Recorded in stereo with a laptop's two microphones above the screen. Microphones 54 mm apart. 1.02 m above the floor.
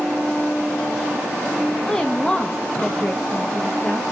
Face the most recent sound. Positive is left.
turn(degrees=10)  # may be behind; listen again after turning